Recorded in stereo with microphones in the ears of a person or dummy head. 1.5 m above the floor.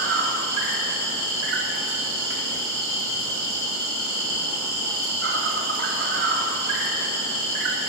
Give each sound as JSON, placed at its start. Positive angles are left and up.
{"t": 0.0, "sound": "an insect", "side_deg": -60, "distance_m": 1.0}